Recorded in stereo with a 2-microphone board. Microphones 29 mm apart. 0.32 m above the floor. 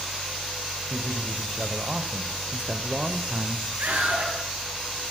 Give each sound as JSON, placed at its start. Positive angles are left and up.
{"t": 0.9, "sound": "a man speaking", "side_deg": -20, "distance_m": 2.0}
{"t": 3.8, "sound": "a scream", "side_deg": -80, "distance_m": 6.5}